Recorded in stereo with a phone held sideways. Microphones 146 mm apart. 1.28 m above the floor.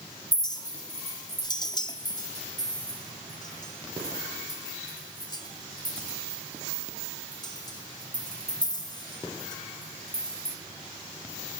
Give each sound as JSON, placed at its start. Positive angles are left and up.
{"t": 0.3, "sound": "a clink", "side_deg": 30, "distance_m": 1.8}